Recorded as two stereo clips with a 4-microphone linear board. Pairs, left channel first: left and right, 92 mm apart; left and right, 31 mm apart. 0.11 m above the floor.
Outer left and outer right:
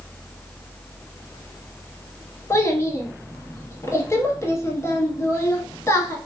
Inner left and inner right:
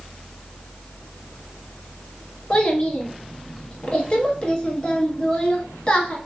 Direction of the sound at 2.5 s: 30° left (ahead or behind).